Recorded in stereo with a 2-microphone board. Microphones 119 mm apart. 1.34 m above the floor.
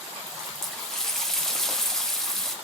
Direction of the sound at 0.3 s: 5° left (ahead or behind).